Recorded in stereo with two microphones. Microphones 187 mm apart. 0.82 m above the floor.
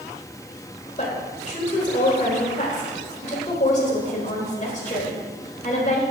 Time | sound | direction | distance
1.0 | a woman speaking | 40° left (ahead or behind) | 3 m